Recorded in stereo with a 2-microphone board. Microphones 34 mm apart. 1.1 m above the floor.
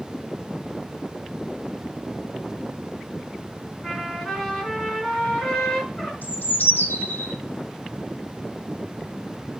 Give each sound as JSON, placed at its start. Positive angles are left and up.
{"t": 3.8, "sound": "a trumpet", "side_deg": 10, "distance_m": 3.0}
{"t": 6.2, "sound": "a bird", "side_deg": 70, "distance_m": 1.2}